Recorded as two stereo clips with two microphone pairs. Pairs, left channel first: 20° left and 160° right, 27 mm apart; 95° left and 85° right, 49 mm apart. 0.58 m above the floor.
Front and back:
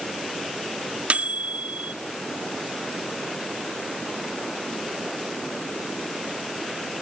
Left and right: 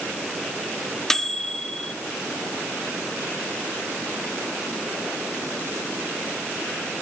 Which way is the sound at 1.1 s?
175° left.